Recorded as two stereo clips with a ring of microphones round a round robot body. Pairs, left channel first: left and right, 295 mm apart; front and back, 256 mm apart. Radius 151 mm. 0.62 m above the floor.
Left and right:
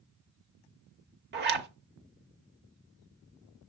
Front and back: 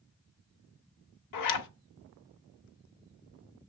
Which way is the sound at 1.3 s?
35° right.